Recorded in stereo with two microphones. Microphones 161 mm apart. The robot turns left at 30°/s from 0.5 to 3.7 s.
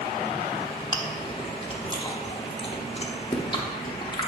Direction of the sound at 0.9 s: 25° left (ahead or behind).